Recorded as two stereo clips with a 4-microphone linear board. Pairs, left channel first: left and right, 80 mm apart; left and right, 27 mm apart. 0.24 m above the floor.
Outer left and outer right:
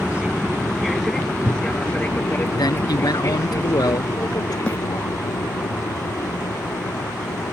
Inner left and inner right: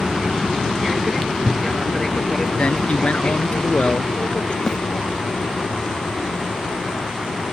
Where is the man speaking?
55° left (ahead or behind).